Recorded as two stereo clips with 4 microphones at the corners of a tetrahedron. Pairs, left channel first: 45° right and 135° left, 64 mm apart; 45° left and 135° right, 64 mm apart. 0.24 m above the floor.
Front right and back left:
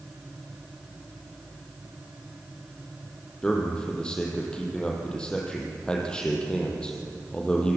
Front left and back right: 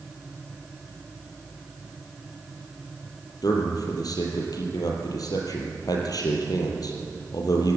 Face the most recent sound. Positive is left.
turn(degrees=30)